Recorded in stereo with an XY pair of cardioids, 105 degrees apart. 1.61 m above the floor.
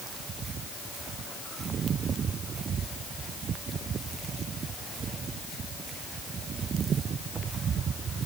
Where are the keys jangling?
I don't hear keys jangling.